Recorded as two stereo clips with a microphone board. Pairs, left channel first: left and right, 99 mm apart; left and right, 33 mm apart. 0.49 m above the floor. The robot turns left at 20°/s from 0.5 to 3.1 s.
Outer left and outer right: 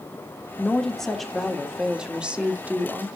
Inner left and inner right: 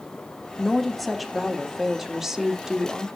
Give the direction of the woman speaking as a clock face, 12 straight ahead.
12 o'clock.